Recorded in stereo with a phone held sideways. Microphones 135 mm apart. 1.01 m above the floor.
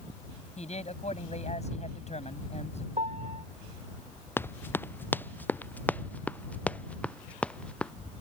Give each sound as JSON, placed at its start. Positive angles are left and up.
{"t": 0.6, "sound": "a man speaking", "side_deg": 55}
{"t": 3.0, "sound": "a piano", "side_deg": -60}
{"t": 4.4, "sound": "running footsteps", "side_deg": 15}